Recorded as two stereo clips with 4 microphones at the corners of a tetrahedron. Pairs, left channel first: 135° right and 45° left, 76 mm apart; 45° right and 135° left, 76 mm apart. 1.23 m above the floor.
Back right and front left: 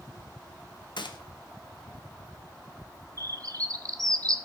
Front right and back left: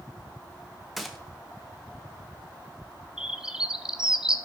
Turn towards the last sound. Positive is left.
turn(degrees=55)